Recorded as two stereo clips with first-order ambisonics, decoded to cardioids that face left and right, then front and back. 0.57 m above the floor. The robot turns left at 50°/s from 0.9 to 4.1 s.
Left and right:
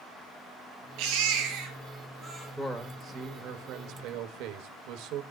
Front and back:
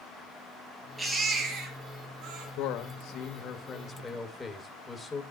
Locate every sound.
1.0 s a baby crying: 90° right, 4 m; by 2.5 s 165° right, 4 m
2.6 s a man speaking: straight ahead, 2 m; by 5.2 s 80° right, 2 m